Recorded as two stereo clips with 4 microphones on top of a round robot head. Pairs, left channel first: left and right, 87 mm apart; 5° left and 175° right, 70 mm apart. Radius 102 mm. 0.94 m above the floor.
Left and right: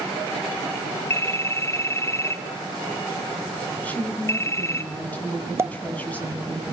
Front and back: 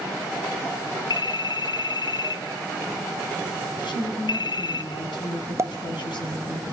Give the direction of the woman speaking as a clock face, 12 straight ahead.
12 o'clock.